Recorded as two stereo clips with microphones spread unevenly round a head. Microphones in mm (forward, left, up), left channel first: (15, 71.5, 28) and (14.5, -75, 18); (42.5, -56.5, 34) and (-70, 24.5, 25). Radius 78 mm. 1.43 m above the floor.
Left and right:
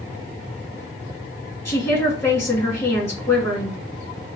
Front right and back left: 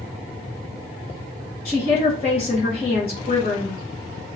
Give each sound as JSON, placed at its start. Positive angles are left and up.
{"t": 1.6, "sound": "a woman speaking", "azimuth_deg": 20, "distance_m": 1.9}